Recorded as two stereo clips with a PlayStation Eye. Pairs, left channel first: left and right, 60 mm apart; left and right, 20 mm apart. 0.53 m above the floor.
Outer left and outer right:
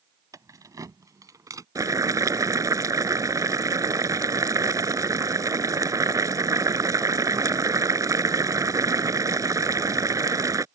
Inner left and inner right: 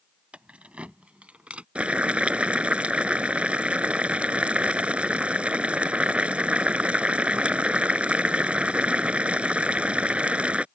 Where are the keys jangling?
75° right (ahead or behind); by 1.6 s 70° right (ahead or behind).